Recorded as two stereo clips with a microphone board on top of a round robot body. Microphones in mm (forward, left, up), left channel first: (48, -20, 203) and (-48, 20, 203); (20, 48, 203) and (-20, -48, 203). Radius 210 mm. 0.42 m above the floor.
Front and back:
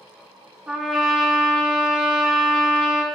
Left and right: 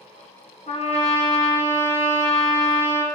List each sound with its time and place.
0.7 s a trumpet: 75° left, 1.3 m